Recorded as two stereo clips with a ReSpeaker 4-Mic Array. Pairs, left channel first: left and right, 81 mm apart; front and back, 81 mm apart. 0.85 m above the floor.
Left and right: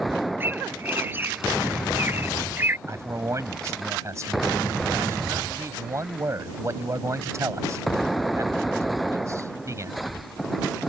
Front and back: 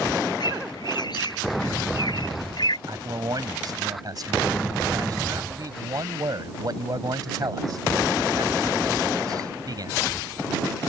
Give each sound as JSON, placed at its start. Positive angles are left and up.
{"t": 0.4, "sound": "a bird", "azimuth_deg": -25}
{"t": 2.9, "sound": "a man speaking", "azimuth_deg": -140}